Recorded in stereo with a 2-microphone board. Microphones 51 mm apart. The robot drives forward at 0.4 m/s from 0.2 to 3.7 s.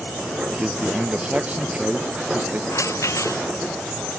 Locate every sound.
0.5 s a man speaking: 25° right (ahead or behind); by 2.6 s 30° right (ahead or behind)
2.7 s a rattle: 75° left (ahead or behind)